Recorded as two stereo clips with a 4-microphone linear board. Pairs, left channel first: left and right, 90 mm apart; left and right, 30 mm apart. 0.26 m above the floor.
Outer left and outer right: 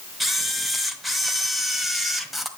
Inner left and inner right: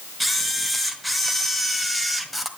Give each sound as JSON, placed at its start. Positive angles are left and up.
{"t": 0.2, "sound": "a camera shutter", "side_deg": 0, "distance_m": 1.5}